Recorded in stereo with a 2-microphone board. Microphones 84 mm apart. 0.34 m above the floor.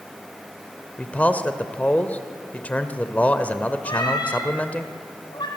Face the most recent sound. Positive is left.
turn(degrees=60)  # may be behind; listen again after turning